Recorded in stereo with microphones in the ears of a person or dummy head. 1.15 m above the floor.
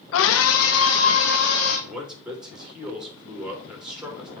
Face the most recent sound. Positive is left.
turn(degrees=-5)  # may be behind; listen again after turning